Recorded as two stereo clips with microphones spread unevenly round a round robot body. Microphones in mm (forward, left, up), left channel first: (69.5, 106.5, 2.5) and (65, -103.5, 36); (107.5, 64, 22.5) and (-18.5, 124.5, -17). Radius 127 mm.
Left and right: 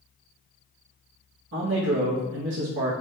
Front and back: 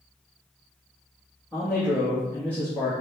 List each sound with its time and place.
1.5 s a man speaking: 120° right, 0.7 m